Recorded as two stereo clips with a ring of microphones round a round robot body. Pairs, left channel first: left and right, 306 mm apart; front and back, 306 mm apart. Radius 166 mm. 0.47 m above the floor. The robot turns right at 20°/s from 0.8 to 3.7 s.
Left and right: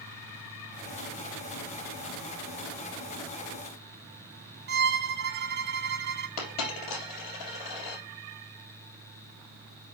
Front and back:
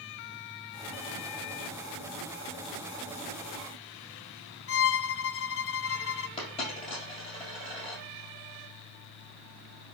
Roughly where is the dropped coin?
Left.